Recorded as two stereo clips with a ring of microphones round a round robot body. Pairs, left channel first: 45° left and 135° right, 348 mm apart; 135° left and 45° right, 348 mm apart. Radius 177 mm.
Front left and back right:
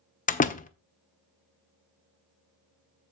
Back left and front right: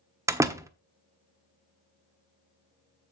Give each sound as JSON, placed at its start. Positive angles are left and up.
{"t": 0.3, "sound": "a door slam", "azimuth_deg": 25, "distance_m": 0.8}